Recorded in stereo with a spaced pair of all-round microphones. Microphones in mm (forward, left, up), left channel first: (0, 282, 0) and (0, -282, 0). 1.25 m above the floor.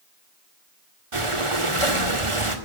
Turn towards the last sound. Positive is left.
turn(degrees=-60)  # may be behind; listen again after turning